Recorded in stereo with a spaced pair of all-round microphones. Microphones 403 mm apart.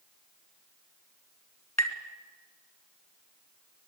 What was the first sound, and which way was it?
Tapping, 40° left (ahead or behind).